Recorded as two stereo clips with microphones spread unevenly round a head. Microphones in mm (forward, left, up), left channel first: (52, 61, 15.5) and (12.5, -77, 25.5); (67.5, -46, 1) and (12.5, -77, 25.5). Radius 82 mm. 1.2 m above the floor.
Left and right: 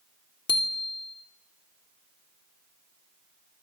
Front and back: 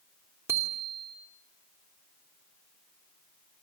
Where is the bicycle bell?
135° left, 2.5 m.